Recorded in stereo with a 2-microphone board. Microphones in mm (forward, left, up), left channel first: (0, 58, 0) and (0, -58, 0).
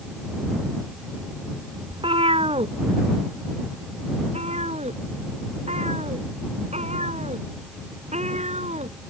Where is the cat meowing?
50° right (ahead or behind); by 8.9 s 70° right (ahead or behind).